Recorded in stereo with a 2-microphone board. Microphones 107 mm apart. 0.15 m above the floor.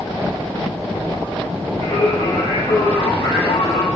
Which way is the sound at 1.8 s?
65° left (ahead or behind).